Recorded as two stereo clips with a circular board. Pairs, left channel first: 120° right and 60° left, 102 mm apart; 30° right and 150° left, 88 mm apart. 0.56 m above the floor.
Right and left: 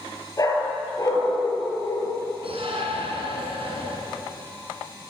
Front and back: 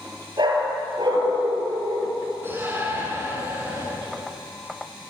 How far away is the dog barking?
About 5.5 m.